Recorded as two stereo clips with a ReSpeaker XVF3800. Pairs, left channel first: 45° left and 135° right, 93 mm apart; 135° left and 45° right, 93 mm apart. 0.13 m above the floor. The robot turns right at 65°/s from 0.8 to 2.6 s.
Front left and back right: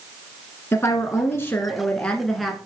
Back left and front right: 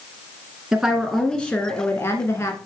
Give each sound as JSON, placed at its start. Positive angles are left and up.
{"t": 0.7, "sound": "a woman speaking", "azimuth_deg": 30, "distance_m": 1.2}